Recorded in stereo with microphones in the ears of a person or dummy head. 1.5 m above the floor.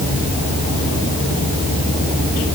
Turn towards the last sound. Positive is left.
No sound to turn to.